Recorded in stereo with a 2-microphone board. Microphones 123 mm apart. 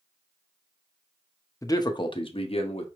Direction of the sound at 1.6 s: 25° left (ahead or behind).